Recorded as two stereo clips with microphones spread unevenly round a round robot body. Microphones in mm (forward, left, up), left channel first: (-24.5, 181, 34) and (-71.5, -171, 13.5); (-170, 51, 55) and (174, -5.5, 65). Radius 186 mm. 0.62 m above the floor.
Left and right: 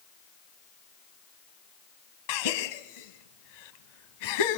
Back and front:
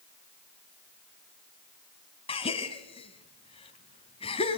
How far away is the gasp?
About 1.4 m.